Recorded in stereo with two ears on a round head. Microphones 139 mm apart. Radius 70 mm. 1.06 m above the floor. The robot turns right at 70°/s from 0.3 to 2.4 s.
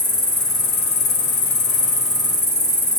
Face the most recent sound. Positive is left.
turn(degrees=155)